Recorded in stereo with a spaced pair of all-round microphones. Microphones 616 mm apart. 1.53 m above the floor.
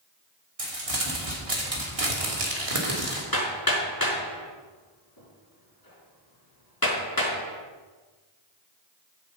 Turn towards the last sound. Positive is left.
turn(degrees=35)  # may be behind; listen again after turning